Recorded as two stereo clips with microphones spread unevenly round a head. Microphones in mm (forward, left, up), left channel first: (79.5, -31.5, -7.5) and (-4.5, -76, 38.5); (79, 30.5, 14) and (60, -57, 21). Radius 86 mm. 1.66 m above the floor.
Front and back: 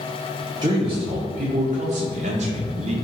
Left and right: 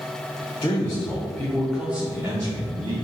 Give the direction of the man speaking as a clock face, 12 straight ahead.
7 o'clock.